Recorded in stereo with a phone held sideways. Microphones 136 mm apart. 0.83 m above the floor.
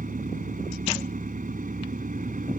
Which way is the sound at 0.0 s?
85° right.